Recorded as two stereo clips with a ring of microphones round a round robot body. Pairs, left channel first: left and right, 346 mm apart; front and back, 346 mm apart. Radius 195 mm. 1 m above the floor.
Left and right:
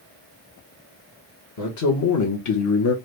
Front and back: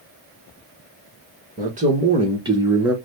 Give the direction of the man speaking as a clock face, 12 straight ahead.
8 o'clock.